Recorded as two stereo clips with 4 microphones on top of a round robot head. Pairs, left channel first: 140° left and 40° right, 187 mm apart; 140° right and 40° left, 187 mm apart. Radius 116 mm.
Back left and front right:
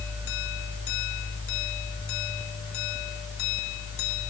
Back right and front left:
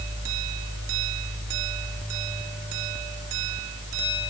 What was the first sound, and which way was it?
Only background noise.